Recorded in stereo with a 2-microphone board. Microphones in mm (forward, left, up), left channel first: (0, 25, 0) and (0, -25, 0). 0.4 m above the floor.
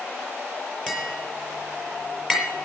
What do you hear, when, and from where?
0.9 s tapping: 5° left (ahead or behind), 6 m